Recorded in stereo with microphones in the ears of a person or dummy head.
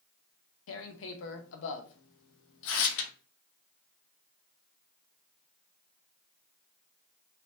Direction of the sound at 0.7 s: 70° left (ahead or behind).